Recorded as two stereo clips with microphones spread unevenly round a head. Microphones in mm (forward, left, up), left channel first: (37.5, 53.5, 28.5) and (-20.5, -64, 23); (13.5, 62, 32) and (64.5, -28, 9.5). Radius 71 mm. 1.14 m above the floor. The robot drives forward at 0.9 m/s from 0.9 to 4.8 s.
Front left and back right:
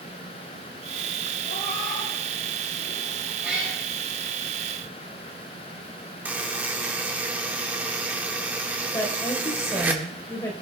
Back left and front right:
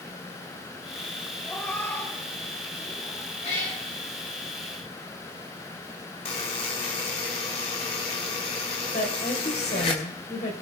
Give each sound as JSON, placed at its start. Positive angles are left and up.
{"t": 1.4, "sound": "a cat meowing", "azimuth_deg": 45, "distance_m": 3.0}
{"t": 3.4, "sound": "a cat meowing", "azimuth_deg": 165, "distance_m": 9.0}
{"t": 6.2, "sound": "a buzzer", "azimuth_deg": 165, "distance_m": 1.9}
{"t": 8.9, "sound": "a woman speaking", "azimuth_deg": 135, "distance_m": 4.5}